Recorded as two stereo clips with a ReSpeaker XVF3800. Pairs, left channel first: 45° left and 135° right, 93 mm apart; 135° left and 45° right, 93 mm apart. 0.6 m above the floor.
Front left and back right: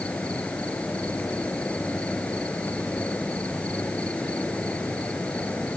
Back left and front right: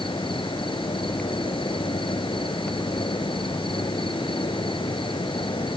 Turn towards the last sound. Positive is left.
turn(degrees=120)